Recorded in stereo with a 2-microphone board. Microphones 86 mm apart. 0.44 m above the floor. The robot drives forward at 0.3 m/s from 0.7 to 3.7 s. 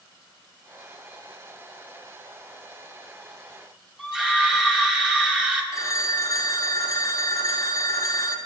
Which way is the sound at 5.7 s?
40° left (ahead or behind).